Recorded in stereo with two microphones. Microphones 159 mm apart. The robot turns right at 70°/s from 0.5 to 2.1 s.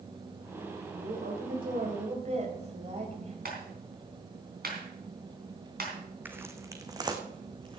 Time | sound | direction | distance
0.9 | a woman speaking | 130° right | 3.5 m
3.5 | a clap | 80° right | 3.5 m
6.2 | footsteps | 10° right (ahead or behind) | 1.4 m